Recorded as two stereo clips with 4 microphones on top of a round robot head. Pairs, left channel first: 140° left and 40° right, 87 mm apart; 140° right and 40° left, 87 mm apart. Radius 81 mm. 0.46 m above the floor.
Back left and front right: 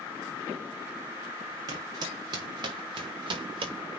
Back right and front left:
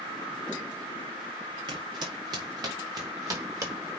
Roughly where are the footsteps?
Ahead.